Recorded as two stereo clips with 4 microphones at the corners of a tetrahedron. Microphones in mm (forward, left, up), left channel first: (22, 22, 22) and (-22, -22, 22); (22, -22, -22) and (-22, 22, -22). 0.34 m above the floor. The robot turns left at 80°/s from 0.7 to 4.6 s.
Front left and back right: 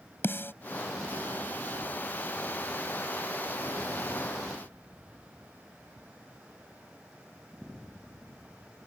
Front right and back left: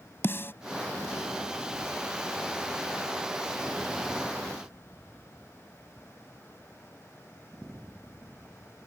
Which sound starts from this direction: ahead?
A snare drum, at 0.2 s.